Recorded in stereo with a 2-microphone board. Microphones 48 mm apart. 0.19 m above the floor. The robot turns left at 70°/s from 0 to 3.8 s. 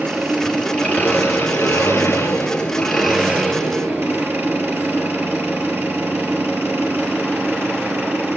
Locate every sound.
0.0 s an engine running: 150° right, 3 m; by 8.4 s 55° right, 3 m